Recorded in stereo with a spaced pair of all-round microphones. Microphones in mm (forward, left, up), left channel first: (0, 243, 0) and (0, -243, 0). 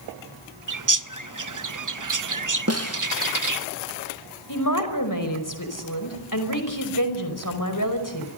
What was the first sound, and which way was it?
A bird, 40° right (ahead or behind).